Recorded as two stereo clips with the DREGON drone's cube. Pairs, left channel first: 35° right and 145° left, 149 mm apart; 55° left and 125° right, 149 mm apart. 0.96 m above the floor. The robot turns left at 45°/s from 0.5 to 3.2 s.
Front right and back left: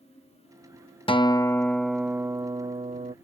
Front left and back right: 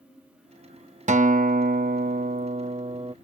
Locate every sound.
1.1 s a guitar: 90° right; by 3.1 s straight behind